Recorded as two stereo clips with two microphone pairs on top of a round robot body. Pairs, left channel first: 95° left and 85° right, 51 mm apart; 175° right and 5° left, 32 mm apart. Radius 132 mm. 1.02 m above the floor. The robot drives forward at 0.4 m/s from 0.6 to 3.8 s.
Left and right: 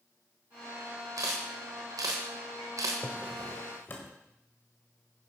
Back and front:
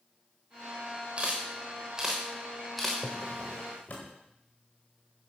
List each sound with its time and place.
1.2 s a camera shutter: 50° right, 1.2 m; by 2.9 s 95° right, 1.0 m
3.0 s a drawer: 130° left, 1.2 m; by 4.2 s 140° left, 1.4 m